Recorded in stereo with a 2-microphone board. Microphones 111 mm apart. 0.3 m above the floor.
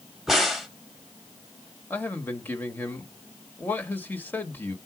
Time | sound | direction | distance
0.3 | a crack | centre (ahead or behind) | 1.3 m
1.9 | a man speaking | 20° left (ahead or behind) | 1.0 m